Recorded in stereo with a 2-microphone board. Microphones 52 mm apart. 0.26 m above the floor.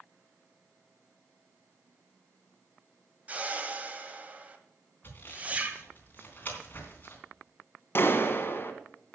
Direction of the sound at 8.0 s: 45° left (ahead or behind).